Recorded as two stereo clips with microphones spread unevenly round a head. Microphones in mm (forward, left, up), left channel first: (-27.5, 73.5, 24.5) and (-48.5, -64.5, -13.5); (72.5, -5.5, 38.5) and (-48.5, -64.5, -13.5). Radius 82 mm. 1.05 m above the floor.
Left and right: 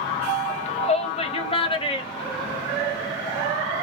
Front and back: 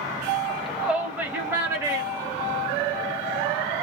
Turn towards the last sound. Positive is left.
turn(degrees=145)